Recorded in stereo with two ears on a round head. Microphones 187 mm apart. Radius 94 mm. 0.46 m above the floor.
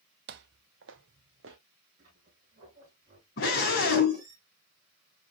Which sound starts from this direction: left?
A scream, at 3.4 s.